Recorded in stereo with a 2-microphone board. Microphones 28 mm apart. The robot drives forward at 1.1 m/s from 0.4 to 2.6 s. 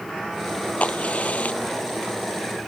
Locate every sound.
0.8 s a crack: 45° left (ahead or behind); by 2.1 s 55° left (ahead or behind)